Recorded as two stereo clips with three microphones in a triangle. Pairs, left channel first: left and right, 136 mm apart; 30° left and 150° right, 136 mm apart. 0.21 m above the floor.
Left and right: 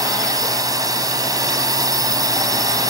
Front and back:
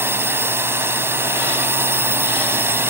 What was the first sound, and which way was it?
A drone, 100° right.